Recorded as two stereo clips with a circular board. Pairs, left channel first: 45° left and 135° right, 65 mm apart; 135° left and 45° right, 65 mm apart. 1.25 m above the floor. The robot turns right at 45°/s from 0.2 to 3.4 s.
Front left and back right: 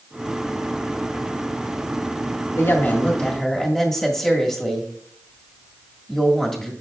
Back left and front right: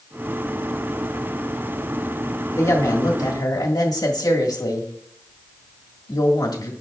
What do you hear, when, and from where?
2.6 s a woman speaking: 90° left, 1.8 m; by 6.7 s 130° left, 1.8 m